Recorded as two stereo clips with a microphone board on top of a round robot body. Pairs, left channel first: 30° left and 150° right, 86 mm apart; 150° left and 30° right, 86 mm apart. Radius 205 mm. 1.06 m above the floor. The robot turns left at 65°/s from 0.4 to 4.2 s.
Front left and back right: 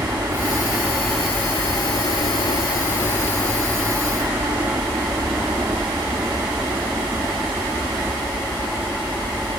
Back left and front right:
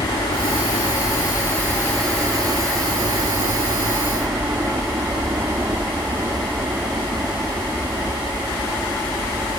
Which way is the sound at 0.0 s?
160° left.